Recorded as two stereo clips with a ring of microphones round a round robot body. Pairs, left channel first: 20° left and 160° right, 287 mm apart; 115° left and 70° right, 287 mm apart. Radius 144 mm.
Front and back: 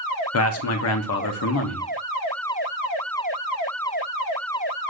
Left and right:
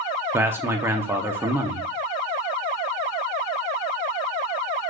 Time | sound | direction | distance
0.3 | a man speaking | 10° left | 0.7 m